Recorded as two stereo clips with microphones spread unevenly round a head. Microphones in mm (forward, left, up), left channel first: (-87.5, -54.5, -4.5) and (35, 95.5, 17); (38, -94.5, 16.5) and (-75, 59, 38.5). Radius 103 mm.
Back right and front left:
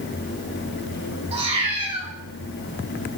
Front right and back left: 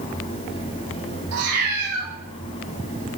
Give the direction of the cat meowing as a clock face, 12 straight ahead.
8 o'clock.